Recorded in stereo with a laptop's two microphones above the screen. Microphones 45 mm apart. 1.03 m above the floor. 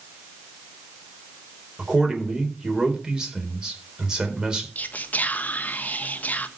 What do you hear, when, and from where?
1.8 s a man speaking: 15° right (ahead or behind), 4 m
4.8 s whispering: 40° left (ahead or behind), 1.0 m